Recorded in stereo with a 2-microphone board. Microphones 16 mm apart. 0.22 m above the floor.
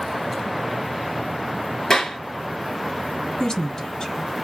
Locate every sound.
1.9 s a clap: 35° left (ahead or behind), 3 m
3.4 s a woman speaking: 50° left (ahead or behind), 2.0 m